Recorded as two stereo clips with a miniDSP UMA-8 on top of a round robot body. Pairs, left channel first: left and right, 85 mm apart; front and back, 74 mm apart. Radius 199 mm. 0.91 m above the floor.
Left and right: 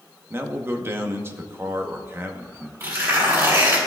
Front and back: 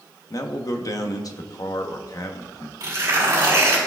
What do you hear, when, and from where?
0.3 s a man speaking: 30° right, 1.1 m
2.8 s tearing paper: 145° right, 3 m